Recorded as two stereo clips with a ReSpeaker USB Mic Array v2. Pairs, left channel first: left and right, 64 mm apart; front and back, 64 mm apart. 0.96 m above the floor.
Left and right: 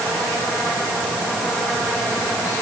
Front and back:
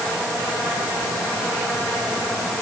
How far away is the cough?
I don't hear a cough.